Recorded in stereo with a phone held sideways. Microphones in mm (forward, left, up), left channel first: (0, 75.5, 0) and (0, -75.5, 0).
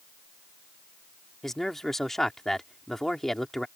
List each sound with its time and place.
1.4 s a man speaking: centre (ahead or behind)